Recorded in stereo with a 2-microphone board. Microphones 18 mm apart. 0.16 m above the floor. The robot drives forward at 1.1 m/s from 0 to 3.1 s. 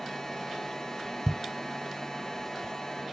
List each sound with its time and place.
1.3 s a thud: 10° right (ahead or behind); by 3.1 s 5° right (ahead or behind)